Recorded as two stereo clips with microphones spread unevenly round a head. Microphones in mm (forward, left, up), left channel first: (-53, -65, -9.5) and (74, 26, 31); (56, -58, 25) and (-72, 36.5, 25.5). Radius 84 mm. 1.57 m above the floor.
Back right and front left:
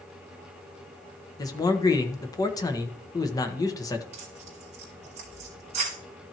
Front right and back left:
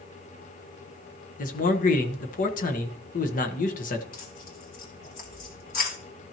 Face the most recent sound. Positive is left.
turn(degrees=0)